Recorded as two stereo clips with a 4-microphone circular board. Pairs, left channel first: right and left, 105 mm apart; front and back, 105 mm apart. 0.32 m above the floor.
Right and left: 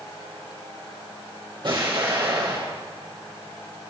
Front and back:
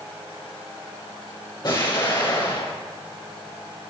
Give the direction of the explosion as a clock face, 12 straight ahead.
10 o'clock.